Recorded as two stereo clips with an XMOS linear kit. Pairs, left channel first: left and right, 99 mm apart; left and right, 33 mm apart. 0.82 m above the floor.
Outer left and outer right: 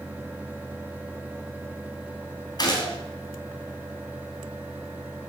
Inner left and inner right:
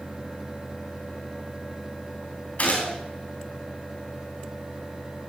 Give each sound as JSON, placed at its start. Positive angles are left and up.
{"t": 2.6, "sound": "a gunshot", "side_deg": 45, "distance_m": 3.5}